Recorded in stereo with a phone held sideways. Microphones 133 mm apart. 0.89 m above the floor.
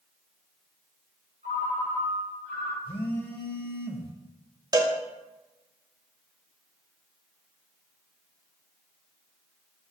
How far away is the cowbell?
About 0.5 m.